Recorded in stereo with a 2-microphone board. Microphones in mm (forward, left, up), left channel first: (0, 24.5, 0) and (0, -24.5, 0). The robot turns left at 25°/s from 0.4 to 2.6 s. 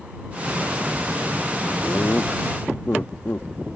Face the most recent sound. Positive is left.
turn(degrees=55)  # may be behind; listen again after turning